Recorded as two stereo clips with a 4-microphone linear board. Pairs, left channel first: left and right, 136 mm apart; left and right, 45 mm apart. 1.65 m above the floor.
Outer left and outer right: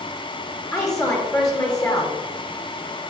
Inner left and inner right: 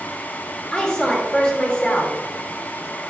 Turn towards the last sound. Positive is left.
turn(degrees=25)  # may be behind; listen again after turning